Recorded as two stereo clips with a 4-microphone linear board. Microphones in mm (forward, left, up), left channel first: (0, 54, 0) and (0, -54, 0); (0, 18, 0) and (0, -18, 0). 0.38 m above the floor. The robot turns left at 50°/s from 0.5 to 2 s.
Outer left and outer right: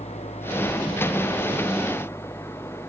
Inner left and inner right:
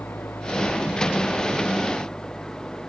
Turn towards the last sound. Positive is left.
turn(degrees=25)